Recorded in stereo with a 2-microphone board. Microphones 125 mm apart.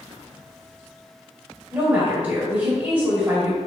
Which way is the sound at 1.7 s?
15° right (ahead or behind).